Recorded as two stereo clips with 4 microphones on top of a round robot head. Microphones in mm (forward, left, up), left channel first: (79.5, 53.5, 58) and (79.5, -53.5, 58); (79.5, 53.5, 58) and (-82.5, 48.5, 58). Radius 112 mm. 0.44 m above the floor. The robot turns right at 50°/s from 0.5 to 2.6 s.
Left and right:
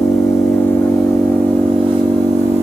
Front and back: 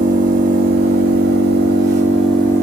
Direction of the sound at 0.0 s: 155° left.